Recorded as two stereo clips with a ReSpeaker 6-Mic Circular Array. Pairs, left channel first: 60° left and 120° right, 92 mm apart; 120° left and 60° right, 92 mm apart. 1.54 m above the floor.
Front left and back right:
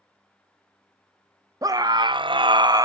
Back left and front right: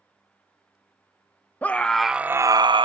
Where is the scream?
170° right, 0.8 m; by 2.8 s 75° right, 0.6 m.